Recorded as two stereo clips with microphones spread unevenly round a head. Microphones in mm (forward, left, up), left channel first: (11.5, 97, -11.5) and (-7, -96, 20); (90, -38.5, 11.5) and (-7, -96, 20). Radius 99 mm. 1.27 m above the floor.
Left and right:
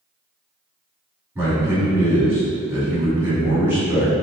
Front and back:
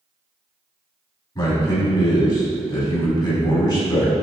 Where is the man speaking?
15° right, 2.0 m.